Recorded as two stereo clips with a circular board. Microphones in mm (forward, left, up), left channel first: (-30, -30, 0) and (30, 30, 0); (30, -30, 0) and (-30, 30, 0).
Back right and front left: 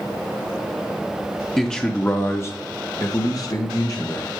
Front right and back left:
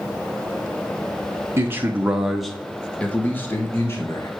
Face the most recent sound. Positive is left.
turn(degrees=-95)